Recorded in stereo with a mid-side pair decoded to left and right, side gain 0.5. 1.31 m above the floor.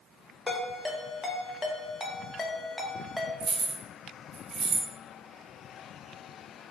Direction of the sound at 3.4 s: 60° right.